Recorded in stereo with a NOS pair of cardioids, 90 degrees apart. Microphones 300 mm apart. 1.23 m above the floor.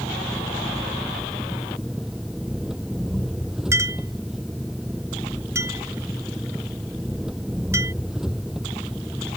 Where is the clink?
10° right.